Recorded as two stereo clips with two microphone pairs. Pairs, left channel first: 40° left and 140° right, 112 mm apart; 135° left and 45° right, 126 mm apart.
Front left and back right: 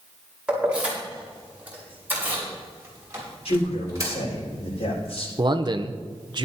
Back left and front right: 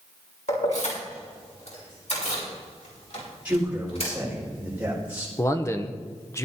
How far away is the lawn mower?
No lawn mower in this recording.